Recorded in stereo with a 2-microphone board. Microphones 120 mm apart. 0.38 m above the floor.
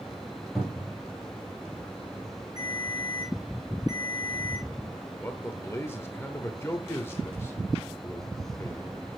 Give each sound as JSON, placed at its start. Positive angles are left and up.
{"t": 0.6, "sound": "a cupboard door", "side_deg": 0, "distance_m": 5.0}
{"t": 2.6, "sound": "a ringtone", "side_deg": -35, "distance_m": 3.0}
{"t": 5.2, "sound": "a man speaking", "side_deg": 20, "distance_m": 1.0}